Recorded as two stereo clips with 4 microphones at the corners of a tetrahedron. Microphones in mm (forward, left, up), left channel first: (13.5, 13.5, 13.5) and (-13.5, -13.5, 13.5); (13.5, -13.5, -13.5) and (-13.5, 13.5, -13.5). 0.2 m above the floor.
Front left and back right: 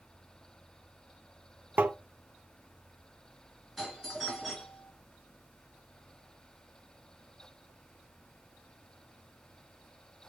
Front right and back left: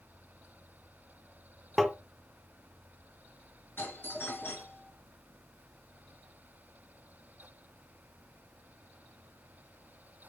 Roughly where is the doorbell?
Ahead right.